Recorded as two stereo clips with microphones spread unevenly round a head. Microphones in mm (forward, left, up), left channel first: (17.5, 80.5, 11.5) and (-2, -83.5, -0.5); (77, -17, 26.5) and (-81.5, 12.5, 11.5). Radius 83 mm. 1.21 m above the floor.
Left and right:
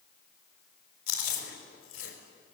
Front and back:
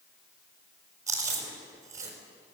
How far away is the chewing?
About 5 m.